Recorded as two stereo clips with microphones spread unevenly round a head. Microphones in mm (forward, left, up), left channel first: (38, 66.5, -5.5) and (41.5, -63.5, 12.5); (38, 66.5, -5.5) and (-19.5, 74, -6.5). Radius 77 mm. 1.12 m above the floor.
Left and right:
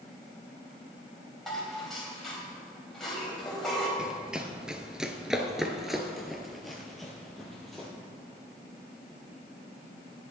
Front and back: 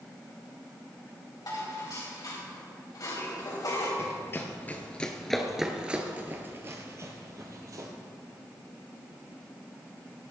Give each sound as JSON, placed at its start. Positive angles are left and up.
{"t": 1.5, "sound": "dishes clattering", "azimuth_deg": 0, "distance_m": 3.5}
{"t": 4.0, "sound": "running footsteps", "azimuth_deg": -15, "distance_m": 1.4}